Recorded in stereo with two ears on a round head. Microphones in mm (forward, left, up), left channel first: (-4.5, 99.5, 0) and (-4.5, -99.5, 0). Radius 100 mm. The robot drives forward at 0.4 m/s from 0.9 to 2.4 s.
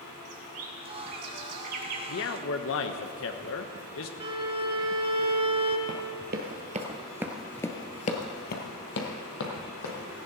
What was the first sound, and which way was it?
A bird, 75° right (ahead or behind).